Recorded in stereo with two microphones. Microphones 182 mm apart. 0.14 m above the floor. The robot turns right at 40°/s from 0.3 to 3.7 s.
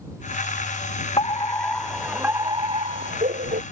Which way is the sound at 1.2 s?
150° left.